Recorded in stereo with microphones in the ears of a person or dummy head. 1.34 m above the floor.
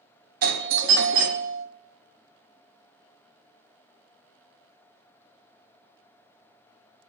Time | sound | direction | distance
0.4 | a doorbell | 45° right (ahead or behind) | 0.5 m